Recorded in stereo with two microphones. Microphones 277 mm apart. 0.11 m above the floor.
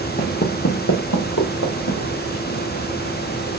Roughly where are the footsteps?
Left.